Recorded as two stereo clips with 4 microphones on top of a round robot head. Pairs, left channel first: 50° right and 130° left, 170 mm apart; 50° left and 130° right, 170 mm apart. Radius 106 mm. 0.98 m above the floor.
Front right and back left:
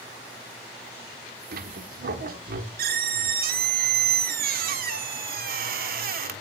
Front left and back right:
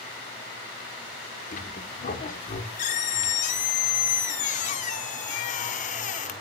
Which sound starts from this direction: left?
A squeak, at 1.5 s.